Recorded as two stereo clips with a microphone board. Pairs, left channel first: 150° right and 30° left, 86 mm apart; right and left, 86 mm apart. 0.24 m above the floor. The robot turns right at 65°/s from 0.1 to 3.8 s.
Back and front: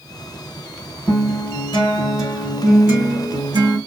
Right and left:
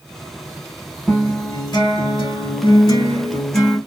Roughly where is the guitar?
Behind.